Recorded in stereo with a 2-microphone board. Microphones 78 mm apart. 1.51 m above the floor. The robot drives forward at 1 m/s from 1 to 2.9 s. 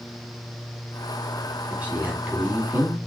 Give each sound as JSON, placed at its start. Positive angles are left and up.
{"t": 1.7, "sound": "a man speaking", "side_deg": -15, "distance_m": 4.5}